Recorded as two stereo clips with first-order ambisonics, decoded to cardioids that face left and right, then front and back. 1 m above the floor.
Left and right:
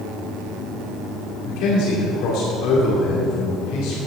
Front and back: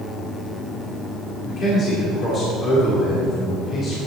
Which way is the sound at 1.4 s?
65° left.